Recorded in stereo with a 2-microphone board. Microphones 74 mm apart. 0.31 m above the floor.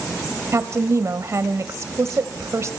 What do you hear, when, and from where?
0.5 s a woman speaking: 40° right (ahead or behind), 1.5 m